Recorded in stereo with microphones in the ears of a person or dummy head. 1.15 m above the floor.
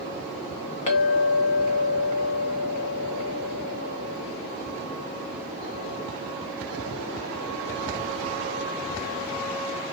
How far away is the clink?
About 0.9 m.